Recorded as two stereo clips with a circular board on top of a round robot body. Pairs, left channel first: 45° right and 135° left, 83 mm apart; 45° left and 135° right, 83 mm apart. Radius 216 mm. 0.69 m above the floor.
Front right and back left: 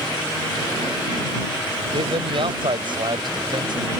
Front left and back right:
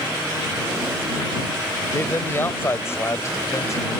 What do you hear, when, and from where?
1.9 s a man speaking: 115° left; by 4.0 s 100° left